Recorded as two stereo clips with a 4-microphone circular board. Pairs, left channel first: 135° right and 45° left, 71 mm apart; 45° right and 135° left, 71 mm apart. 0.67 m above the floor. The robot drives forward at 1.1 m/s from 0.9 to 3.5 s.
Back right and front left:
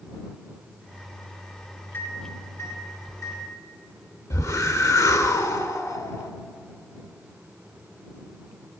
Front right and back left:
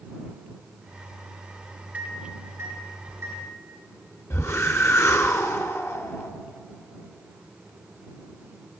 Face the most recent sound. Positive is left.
turn(degrees=-95)